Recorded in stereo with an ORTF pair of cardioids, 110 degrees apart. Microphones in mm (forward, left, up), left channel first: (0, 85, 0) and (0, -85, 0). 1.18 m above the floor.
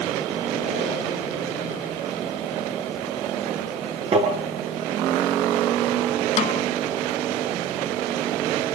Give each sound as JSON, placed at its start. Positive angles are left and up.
{"t": 4.1, "sound": "tapping", "azimuth_deg": -35, "distance_m": 8.5}
{"t": 6.4, "sound": "a snare drum", "azimuth_deg": 45, "distance_m": 1.6}